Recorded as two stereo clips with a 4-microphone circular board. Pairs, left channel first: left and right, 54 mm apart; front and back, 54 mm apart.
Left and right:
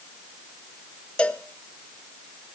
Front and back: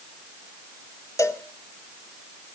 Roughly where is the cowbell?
Ahead.